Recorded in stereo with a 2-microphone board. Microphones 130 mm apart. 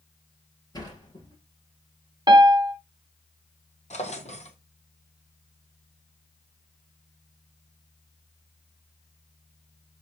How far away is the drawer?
About 1.3 m.